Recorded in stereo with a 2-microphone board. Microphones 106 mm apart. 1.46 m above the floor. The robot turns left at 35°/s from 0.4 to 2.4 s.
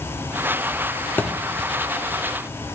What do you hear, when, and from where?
1.2 s a thud: 20° left (ahead or behind), 1.2 m